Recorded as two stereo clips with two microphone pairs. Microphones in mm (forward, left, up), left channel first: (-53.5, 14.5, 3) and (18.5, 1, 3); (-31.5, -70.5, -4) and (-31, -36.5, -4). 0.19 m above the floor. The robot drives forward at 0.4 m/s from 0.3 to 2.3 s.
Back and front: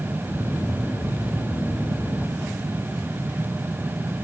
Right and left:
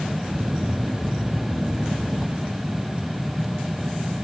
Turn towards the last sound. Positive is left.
No sound to turn to.